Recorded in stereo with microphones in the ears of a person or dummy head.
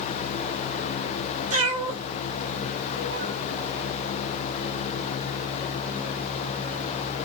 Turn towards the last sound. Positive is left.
turn(degrees=-40)  # may be behind; listen again after turning